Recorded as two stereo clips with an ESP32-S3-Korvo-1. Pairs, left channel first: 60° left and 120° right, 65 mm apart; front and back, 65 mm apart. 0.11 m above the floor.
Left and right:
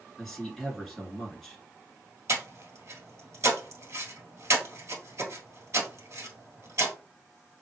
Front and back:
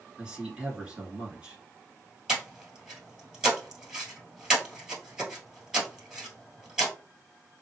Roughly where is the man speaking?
Behind left.